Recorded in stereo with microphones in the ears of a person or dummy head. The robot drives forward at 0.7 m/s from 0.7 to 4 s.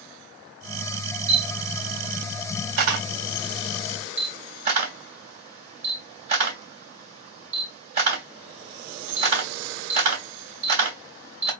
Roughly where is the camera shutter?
Right.